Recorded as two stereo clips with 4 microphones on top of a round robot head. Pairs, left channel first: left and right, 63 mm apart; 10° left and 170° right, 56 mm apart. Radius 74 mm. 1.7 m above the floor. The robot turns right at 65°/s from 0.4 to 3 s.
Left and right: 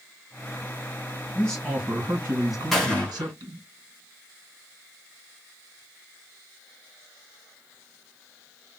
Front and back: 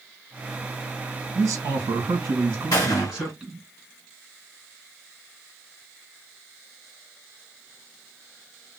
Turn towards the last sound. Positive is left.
turn(degrees=25)